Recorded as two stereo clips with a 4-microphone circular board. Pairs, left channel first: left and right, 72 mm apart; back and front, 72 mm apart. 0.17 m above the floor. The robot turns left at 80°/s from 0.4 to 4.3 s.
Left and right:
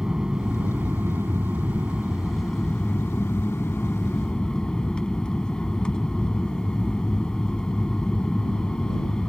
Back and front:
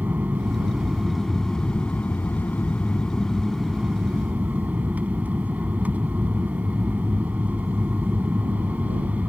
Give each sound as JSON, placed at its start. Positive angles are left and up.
{"t": 0.0, "sound": "an aircraft", "azimuth_deg": -20}